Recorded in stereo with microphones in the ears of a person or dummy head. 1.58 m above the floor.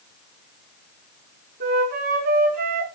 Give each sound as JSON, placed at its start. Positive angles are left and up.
{"t": 1.6, "sound": "a flute", "side_deg": -50, "distance_m": 6.0}